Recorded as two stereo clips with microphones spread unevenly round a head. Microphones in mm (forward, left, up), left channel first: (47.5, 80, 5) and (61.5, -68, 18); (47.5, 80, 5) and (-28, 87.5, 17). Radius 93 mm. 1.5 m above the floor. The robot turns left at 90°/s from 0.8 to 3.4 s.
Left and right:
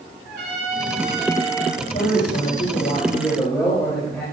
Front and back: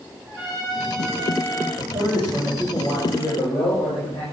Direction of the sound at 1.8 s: 165° left.